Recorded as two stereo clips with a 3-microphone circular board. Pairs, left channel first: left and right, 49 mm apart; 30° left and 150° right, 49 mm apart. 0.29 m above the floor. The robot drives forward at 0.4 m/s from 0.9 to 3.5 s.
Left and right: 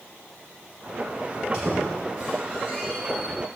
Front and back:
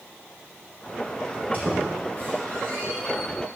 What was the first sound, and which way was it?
A squeak, 160° left.